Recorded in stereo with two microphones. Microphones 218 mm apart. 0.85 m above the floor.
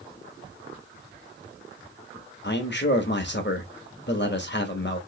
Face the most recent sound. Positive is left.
turn(degrees=55)  # may be behind; listen again after turning